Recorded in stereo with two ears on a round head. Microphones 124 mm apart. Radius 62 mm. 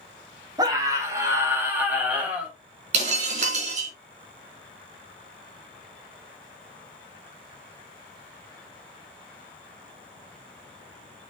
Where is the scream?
30° right (ahead or behind), 2.5 m; by 2.5 s 5° right (ahead or behind), 3.5 m.